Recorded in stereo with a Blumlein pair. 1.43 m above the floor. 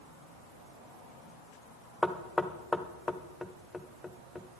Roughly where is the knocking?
Ahead.